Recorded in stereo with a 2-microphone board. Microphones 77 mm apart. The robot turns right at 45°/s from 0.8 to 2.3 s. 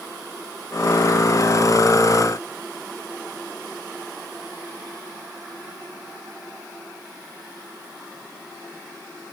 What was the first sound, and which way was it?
Only background noise.